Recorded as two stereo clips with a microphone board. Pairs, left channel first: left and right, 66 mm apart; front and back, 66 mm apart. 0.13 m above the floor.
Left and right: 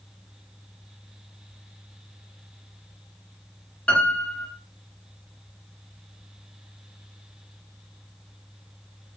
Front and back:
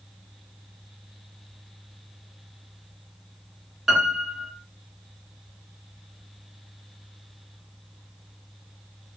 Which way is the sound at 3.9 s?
100° left.